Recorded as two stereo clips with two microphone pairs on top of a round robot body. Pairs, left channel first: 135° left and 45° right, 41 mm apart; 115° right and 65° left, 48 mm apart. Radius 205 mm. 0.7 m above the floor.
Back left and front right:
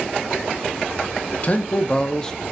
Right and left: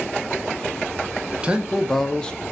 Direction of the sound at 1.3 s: 125° left.